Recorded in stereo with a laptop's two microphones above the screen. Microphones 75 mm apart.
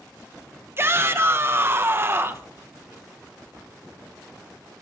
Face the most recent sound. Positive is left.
turn(degrees=-30)  # may be behind; listen again after turning